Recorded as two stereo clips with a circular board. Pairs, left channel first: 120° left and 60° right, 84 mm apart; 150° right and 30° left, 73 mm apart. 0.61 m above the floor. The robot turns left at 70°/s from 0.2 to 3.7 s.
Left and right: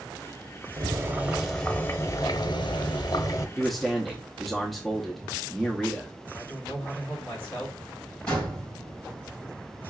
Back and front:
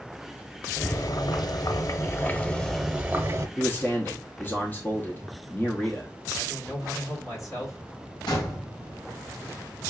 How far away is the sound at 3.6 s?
About 0.7 m.